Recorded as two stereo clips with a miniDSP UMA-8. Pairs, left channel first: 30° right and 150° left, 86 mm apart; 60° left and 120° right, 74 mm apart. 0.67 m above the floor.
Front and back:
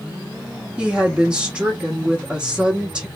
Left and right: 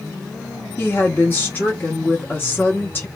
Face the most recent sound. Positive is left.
turn(degrees=85)